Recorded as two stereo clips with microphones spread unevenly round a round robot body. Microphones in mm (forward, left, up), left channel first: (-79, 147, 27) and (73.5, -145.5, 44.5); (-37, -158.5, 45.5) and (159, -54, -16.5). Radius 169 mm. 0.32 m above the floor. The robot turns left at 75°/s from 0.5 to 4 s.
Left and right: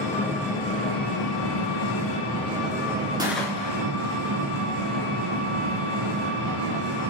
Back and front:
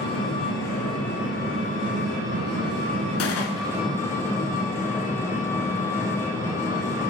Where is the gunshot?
140° right, 1.2 m; by 3.8 s 175° left, 1.2 m.